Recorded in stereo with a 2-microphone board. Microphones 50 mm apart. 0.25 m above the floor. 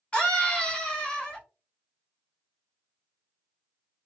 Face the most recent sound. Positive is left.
turn(degrees=25)  # may be behind; listen again after turning